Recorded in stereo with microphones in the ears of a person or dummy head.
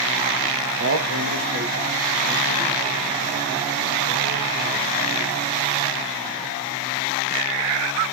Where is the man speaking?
75° right (ahead or behind), 1.4 m; by 4.9 s 45° right (ahead or behind), 7.5 m.